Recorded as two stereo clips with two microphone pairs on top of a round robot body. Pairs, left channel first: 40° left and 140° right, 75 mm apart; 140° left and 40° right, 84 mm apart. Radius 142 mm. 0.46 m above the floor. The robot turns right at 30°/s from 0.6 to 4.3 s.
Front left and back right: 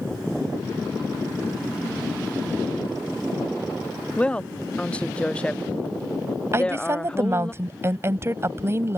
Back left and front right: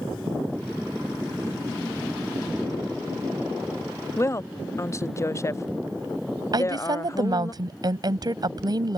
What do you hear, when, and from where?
4.2 s a woman speaking: 105° left; by 7.5 s 110° left
6.5 s a woman speaking: 80° right